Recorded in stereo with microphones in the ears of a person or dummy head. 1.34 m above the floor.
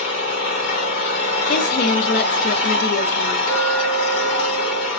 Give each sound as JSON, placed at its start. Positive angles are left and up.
{"t": 0.0, "sound": "an engine running", "side_deg": 60, "distance_m": 1.5}
{"t": 1.5, "sound": "a woman speaking", "side_deg": 50, "distance_m": 0.5}
{"t": 3.5, "sound": "a clink", "side_deg": 80, "distance_m": 2.5}